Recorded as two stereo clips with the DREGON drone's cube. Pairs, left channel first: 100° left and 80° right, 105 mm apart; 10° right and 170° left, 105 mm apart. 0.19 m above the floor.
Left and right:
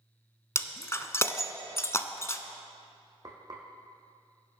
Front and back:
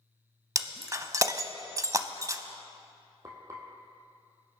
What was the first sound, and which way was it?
Breaking glass, 135° left.